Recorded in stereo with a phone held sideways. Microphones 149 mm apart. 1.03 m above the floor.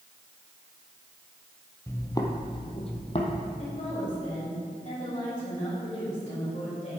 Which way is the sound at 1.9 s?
15° left (ahead or behind).